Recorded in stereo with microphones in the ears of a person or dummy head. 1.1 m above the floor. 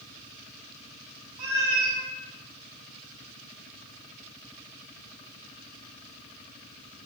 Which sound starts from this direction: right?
A cat meowing, at 1.4 s.